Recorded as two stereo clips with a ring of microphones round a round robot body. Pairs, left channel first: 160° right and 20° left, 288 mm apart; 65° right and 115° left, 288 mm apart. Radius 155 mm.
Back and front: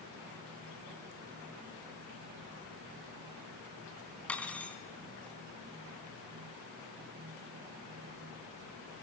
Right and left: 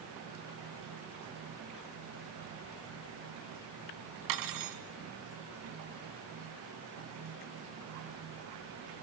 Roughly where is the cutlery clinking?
Behind left.